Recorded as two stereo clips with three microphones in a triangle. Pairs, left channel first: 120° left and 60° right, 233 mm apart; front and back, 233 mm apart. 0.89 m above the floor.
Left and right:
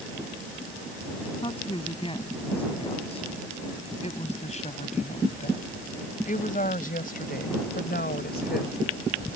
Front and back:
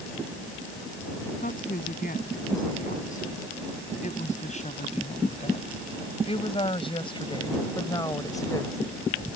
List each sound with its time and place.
1.4 s a woman speaking: 50° left; by 8.8 s 75° left